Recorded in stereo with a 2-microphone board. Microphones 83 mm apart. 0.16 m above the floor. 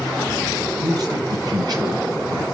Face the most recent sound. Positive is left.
turn(degrees=-55)  # may be behind; listen again after turning